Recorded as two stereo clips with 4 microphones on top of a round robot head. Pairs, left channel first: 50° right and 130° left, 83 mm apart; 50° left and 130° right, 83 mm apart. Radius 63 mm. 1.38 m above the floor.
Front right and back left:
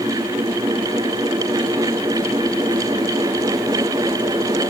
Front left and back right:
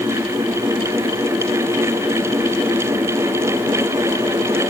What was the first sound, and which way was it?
Only background noise.